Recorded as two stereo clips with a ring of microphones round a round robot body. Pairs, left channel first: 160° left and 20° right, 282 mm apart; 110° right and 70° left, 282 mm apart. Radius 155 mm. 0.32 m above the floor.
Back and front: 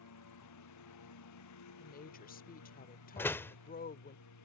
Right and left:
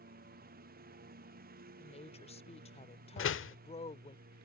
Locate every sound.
0.0 s a lawn mower: 130° left
1.8 s a woman speaking: 165° right
3.2 s a door slam: 125° right